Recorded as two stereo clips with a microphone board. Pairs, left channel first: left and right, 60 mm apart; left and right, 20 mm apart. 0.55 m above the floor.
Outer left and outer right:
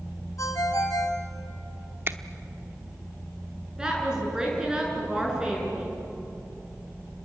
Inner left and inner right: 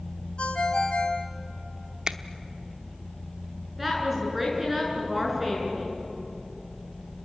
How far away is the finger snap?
About 0.9 m.